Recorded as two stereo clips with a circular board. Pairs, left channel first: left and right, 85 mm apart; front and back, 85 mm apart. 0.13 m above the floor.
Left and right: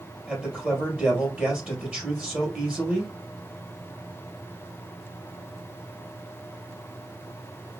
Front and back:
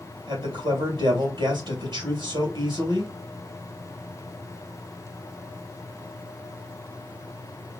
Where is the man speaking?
165° right, 2.5 m.